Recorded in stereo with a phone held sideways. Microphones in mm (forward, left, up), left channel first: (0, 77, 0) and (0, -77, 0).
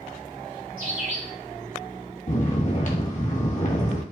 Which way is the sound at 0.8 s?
60° right (ahead or behind).